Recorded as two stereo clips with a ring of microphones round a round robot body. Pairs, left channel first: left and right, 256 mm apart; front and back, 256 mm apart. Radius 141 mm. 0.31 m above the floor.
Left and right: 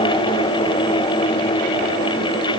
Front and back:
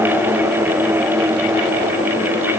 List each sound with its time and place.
Only background noise.